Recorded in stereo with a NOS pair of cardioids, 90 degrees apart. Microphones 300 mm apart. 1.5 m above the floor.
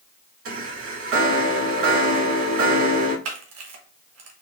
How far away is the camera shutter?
About 1.4 m.